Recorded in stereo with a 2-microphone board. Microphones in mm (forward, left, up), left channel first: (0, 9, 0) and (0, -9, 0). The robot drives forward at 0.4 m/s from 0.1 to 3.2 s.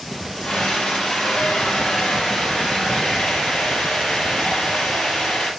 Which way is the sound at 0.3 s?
65° left (ahead or behind).